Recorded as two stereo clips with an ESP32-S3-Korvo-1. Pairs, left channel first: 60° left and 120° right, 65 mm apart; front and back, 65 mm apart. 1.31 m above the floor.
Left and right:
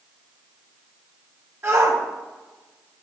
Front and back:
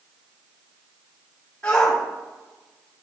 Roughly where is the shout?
Right.